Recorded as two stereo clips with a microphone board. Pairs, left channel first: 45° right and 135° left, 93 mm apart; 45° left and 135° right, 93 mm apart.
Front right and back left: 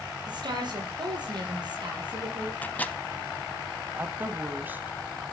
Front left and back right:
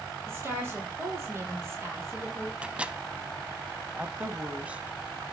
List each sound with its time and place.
0.3 s a woman speaking: 165° left, 6.5 m
2.6 s a microwave: 80° right, 0.8 m
4.0 s a woman speaking: 170° left, 1.0 m